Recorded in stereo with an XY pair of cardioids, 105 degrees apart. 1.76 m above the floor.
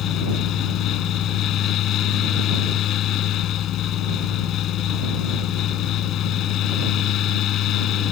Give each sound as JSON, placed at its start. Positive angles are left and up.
{"t": 0.0, "sound": "a fan", "azimuth_deg": 70}